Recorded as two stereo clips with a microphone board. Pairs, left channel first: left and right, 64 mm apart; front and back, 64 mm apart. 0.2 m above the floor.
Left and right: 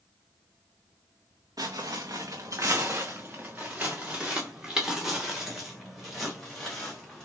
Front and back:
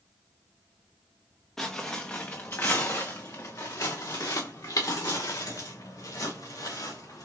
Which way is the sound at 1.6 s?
80° right.